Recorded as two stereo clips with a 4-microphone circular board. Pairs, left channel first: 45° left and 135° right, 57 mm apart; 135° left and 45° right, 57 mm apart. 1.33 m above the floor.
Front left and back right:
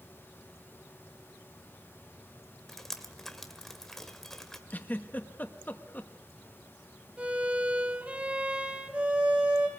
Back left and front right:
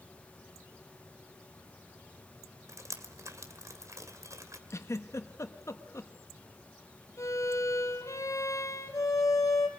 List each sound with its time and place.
2.7 s dripping: 40° right, 2.0 m
4.7 s a giggle: 105° left, 1.4 m
7.2 s a violin: 160° left, 3 m